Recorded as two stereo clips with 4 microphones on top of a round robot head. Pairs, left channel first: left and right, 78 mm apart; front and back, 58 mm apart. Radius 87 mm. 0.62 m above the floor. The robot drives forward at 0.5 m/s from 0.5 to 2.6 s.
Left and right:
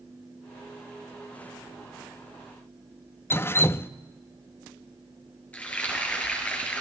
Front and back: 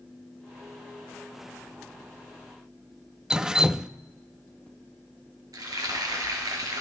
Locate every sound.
3.3 s dripping: 110° left, 0.5 m
5.5 s frying: 165° left, 3 m